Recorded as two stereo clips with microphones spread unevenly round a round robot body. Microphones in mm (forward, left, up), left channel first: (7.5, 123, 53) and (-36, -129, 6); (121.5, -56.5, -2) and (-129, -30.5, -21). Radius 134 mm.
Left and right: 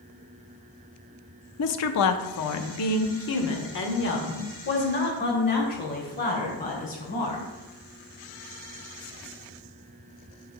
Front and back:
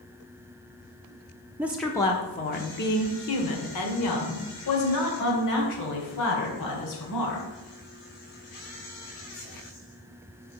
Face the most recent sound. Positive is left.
turn(degrees=20)